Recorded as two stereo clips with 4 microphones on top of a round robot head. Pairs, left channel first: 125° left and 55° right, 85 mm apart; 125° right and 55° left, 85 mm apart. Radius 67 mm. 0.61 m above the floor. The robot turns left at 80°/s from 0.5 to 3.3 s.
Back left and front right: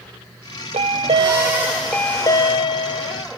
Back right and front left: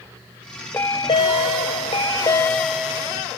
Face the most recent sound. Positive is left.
turn(degrees=95)